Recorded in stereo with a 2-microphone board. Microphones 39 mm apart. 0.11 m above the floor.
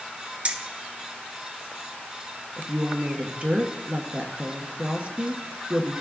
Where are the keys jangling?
35° right (ahead or behind), 1.0 m.